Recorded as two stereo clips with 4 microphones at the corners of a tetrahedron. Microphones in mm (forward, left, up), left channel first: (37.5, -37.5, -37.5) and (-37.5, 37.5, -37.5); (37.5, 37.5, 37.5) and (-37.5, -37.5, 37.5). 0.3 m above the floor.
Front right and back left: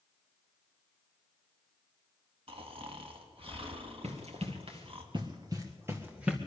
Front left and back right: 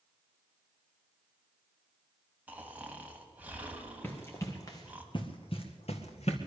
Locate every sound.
2.5 s snoring: 150° left, 1.8 m
4.0 s running footsteps: 115° left, 2 m; by 6.4 s 55° left, 1.9 m